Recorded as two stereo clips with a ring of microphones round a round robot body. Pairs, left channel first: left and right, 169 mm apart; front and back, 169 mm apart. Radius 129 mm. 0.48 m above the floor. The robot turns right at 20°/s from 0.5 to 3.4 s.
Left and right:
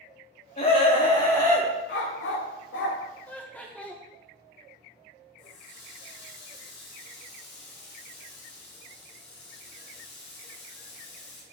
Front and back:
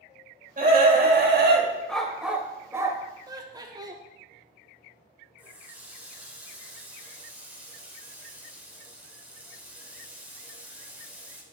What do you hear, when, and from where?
0.6 s a scream: 150° left, 1.9 m; by 1.7 s 170° left, 1.9 m
1.9 s a dog barking: 85° left, 0.9 m; by 3.0 s 110° left, 0.9 m
3.3 s laughter: 155° left, 0.7 m; by 4.0 s 160° left, 0.7 m
5.4 s a running tap: 100° left, 1.4 m